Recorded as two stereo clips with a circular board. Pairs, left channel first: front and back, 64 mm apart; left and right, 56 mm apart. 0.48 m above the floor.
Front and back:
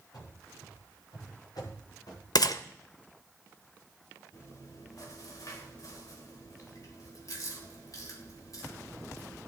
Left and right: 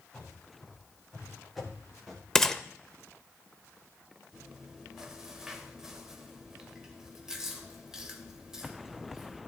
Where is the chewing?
10° right, 2.0 m.